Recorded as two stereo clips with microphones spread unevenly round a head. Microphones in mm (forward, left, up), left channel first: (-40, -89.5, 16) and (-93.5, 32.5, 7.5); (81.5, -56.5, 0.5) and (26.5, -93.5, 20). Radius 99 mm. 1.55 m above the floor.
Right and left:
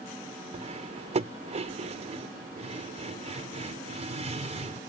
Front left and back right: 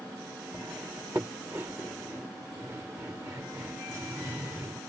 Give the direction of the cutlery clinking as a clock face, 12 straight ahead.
7 o'clock.